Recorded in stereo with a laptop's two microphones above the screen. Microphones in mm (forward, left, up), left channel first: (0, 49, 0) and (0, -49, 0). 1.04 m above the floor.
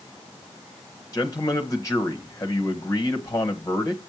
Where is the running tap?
I don't hear a running tap.